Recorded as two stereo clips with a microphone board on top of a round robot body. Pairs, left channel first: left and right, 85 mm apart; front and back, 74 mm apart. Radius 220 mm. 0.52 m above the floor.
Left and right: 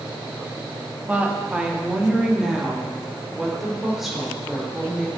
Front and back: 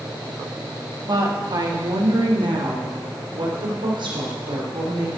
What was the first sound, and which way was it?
A woman speaking, 160° right.